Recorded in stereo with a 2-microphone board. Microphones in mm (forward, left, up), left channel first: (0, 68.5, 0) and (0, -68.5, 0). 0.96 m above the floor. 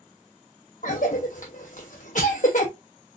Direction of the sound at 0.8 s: 60° left (ahead or behind).